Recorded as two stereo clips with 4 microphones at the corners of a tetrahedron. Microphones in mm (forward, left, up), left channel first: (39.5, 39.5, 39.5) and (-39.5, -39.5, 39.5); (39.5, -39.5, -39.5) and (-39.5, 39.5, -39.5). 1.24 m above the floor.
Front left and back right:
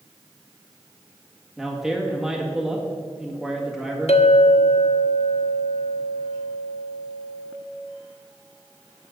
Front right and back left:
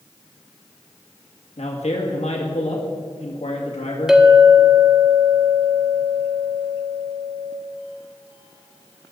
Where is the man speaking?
50° right, 2.0 m.